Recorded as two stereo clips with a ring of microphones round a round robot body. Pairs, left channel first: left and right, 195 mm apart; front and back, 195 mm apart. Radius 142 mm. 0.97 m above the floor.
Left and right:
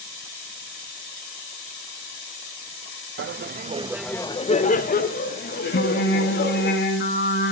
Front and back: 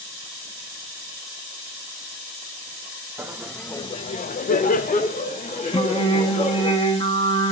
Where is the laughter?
100° right, 0.8 m; by 6.7 s 55° left, 2.5 m.